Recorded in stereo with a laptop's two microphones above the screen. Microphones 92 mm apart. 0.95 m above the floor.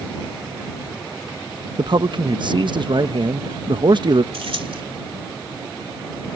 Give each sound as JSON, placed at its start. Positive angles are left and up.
{"t": 1.8, "sound": "a man speaking", "side_deg": -55}
{"t": 4.3, "sound": "keys jangling", "side_deg": -85}